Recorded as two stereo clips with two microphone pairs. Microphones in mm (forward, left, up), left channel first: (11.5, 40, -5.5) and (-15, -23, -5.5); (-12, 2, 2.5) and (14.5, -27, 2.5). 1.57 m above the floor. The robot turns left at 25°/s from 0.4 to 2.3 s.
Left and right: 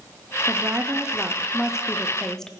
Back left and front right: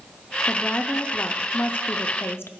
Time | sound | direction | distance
0.5 | a woman speaking | 165° right | 0.5 m